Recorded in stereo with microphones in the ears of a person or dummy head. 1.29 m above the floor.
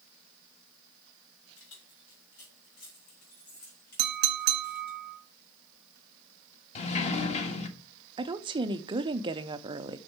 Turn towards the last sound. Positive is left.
turn(degrees=-20)  # may be behind; listen again after turning